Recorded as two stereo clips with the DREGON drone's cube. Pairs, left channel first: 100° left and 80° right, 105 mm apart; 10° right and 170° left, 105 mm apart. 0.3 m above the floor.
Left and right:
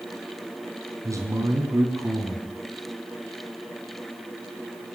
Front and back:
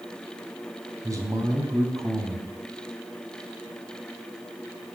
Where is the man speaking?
135° right, 3.5 m.